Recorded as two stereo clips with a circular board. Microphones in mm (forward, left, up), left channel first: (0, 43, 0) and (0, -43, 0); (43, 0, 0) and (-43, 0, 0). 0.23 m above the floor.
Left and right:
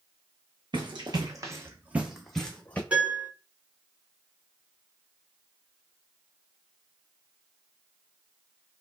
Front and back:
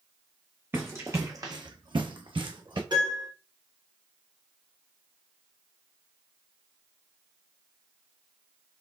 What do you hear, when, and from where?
0.7 s running footsteps: 115° right, 1.0 m; by 2.8 s 160° left, 0.9 m
2.9 s a piano: 165° right, 1.9 m